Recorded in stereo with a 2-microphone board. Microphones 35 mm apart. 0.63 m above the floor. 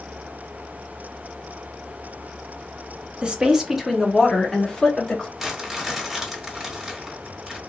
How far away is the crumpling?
About 1.4 m.